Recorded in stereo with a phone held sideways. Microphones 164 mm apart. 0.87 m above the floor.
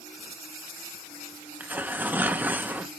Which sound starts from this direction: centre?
Tearing paper, at 1.6 s.